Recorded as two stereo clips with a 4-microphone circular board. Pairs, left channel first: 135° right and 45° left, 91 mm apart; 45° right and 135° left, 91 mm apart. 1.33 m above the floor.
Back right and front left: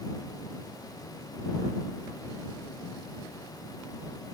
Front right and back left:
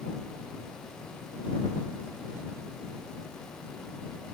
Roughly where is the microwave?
I don't hear a microwave.